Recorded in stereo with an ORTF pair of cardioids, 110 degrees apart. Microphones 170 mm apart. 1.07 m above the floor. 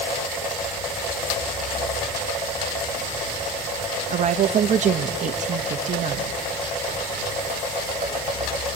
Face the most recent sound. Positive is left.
turn(degrees=-45)